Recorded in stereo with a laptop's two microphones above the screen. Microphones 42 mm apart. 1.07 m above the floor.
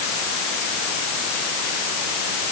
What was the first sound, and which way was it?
Only background noise.